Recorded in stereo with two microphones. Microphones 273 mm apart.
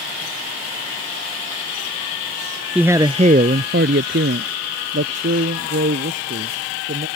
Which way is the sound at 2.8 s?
5° right (ahead or behind).